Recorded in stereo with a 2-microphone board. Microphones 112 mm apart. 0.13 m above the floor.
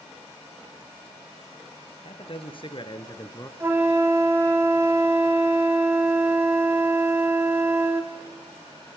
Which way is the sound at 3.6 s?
20° right (ahead or behind).